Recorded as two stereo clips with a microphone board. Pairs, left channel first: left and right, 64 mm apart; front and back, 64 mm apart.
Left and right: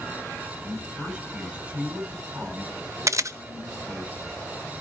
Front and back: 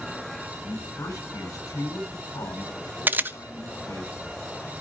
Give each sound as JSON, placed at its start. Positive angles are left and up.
{"t": 0.6, "sound": "a man speaking", "azimuth_deg": -25, "distance_m": 9.0}
{"t": 3.1, "sound": "a camera shutter", "azimuth_deg": -120, "distance_m": 0.8}